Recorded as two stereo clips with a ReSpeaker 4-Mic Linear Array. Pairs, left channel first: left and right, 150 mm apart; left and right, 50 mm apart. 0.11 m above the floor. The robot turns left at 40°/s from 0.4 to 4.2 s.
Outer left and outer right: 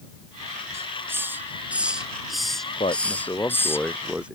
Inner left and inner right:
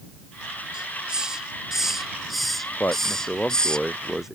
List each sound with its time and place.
0.7 s a hiss: 20° right (ahead or behind); by 3.8 s 15° left (ahead or behind)
2.8 s a man speaking: 50° left; by 4.4 s 10° right